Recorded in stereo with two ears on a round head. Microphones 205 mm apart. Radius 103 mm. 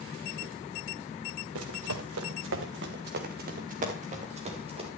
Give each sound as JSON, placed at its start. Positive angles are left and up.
{"t": 1.6, "sound": "running footsteps", "side_deg": -75, "distance_m": 2.0}